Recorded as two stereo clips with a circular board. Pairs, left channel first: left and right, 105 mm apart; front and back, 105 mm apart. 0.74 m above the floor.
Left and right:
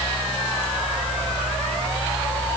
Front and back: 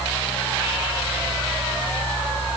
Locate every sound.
Only background noise.